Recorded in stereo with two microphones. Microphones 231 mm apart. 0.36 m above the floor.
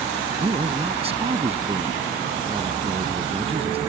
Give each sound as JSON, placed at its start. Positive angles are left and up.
{"t": 0.4, "sound": "a man speaking", "side_deg": -25}